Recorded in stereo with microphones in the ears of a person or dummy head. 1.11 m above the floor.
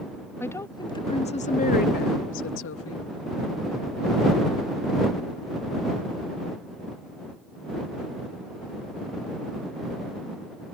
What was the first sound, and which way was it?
A woman speaking, 10° left (ahead or behind).